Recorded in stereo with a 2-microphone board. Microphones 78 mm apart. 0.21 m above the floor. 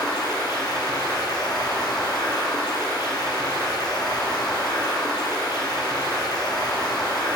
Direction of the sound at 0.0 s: 65° left (ahead or behind).